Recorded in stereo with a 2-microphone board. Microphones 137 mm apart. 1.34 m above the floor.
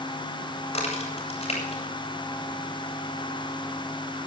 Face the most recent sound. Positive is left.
turn(degrees=50)  # may be behind; listen again after turning